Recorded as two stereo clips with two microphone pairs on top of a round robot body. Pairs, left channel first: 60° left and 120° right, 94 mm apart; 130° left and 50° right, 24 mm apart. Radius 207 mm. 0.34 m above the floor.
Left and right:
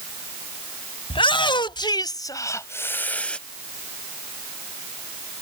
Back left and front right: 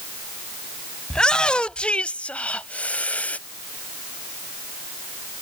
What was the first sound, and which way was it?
A shout, 80° left.